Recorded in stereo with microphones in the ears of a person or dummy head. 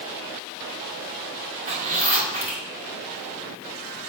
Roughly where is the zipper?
Right.